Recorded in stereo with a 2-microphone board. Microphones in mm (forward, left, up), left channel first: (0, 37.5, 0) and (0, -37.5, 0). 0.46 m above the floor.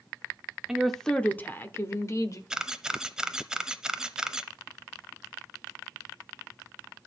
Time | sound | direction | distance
0.7 | a woman speaking | 10° right (ahead or behind) | 0.7 m
2.5 | a camera shutter | 5° right (ahead or behind) | 0.6 m